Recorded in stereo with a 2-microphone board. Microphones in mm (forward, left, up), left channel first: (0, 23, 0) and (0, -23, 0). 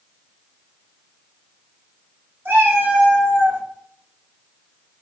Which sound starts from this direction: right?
A cat meowing, at 2.5 s.